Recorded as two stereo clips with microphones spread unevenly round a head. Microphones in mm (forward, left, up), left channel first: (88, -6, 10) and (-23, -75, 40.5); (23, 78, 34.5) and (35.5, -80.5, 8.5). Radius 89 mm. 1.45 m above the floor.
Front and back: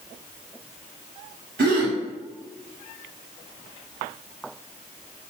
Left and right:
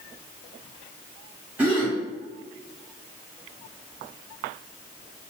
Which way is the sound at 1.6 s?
165° right.